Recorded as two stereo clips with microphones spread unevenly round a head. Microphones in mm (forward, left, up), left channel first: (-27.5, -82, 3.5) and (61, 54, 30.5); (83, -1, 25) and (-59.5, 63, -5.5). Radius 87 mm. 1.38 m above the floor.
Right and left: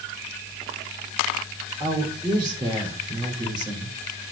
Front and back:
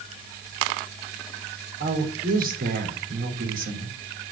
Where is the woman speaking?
125° left, 3.5 m.